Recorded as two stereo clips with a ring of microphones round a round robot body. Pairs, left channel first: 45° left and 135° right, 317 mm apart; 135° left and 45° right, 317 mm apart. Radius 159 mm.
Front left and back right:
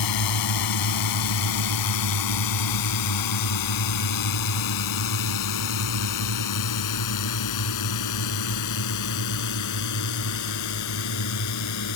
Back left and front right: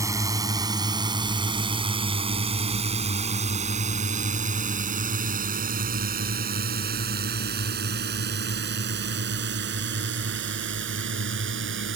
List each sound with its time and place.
0.0 s a drone: 35° left; by 12.0 s 10° left